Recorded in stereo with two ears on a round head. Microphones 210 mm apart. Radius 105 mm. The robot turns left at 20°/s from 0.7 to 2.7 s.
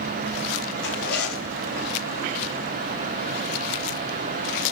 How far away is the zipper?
About 4 m.